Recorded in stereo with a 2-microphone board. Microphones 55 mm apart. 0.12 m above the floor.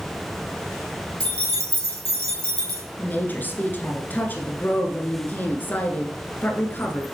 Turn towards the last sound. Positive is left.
turn(degrees=35)  # may be behind; listen again after turning